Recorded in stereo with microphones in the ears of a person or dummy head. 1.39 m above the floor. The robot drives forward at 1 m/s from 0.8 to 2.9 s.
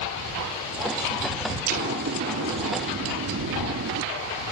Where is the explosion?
50° right (ahead or behind); by 4.0 s 65° right (ahead or behind).